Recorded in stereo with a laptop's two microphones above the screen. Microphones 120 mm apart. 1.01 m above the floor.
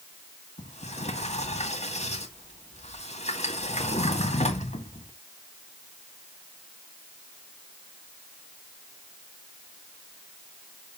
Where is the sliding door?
65° left (ahead or behind), 2 m.